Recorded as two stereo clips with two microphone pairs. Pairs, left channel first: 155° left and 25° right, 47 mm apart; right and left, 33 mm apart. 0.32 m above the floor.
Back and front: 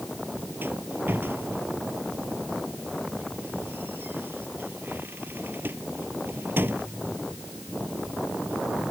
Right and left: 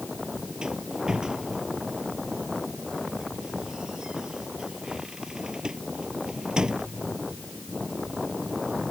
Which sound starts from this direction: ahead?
A rattle, at 0.6 s.